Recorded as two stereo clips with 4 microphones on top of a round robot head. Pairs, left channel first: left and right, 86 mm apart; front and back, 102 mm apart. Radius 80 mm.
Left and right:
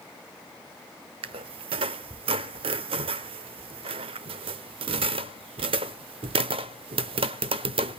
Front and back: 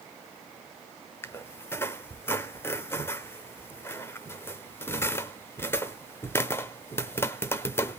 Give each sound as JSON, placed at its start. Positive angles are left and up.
{"t": 1.2, "sound": "a squeak", "azimuth_deg": -70, "distance_m": 0.6}